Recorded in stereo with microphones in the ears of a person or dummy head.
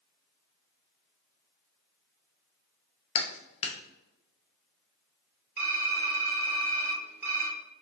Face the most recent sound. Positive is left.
turn(degrees=-10)  # may be behind; listen again after turning